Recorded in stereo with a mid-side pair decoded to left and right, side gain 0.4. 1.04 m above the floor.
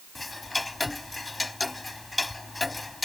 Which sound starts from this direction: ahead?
Ticking, at 0.1 s.